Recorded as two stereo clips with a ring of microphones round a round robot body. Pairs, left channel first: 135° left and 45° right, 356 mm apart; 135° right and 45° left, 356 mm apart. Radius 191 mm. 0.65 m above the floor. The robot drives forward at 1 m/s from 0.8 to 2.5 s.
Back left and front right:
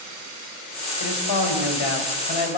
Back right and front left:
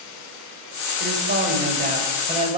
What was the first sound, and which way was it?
A man speaking, 105° left.